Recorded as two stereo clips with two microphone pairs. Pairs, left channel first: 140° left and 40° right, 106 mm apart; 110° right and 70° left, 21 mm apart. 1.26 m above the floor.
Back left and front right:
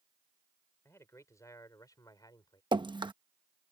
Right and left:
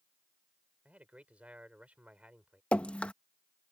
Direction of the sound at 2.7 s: 80° right.